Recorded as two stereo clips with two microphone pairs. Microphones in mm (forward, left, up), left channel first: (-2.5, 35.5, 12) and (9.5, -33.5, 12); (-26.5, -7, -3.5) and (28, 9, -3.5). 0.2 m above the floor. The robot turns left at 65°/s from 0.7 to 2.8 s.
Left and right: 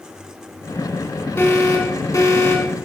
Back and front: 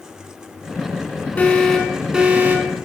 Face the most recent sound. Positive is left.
turn(degrees=50)